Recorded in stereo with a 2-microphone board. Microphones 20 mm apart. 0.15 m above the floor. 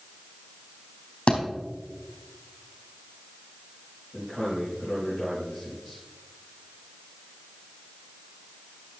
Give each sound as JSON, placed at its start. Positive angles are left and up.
{"t": 1.3, "sound": "a thud", "side_deg": 45, "distance_m": 4.0}
{"t": 4.1, "sound": "a man speaking", "side_deg": -15, "distance_m": 4.5}